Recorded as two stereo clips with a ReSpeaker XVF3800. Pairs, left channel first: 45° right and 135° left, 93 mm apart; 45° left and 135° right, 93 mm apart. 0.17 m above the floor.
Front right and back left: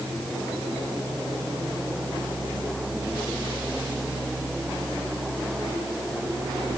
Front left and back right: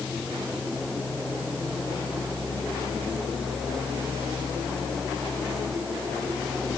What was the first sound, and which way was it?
Only background noise.